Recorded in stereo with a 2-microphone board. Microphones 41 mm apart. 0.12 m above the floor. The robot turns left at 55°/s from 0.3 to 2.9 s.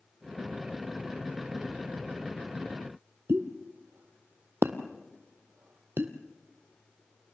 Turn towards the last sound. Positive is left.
turn(degrees=-75)  # may be behind; listen again after turning